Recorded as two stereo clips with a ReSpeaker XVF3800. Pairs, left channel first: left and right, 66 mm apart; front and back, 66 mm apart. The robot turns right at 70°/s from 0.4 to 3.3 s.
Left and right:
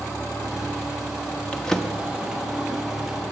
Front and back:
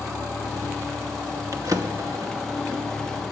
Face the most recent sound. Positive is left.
turn(degrees=-80)